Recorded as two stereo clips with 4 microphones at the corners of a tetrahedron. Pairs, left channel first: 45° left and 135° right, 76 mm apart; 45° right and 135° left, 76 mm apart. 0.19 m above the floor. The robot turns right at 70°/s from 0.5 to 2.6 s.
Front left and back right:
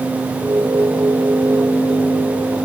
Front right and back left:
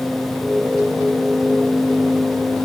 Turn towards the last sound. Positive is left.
No sound to turn to.